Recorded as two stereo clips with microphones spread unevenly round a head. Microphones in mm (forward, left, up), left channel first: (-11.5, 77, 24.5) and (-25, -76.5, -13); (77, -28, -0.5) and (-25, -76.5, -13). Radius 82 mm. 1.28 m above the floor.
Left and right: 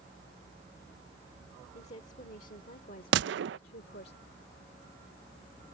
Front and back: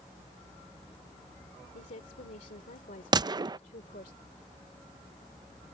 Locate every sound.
1.7 s a woman speaking: 35° left; by 4.1 s 55° left
3.1 s a gunshot: 100° right